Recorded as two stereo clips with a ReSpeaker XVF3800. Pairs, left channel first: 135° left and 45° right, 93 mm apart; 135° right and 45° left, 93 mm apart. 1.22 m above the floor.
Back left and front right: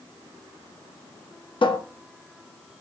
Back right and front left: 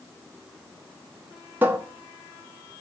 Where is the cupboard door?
115° left, 0.5 m.